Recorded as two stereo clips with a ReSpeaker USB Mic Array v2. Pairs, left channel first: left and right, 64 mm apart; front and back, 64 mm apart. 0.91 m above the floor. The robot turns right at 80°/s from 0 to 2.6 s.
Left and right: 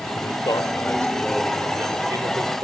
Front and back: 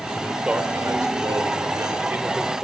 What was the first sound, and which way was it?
A man speaking, 80° left.